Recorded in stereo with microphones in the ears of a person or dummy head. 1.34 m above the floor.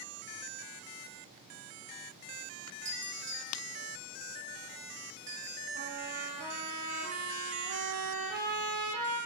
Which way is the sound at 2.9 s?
30° right (ahead or behind).